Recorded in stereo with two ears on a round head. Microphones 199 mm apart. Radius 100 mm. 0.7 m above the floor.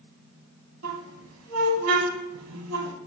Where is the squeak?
75° right (ahead or behind), 1.3 m.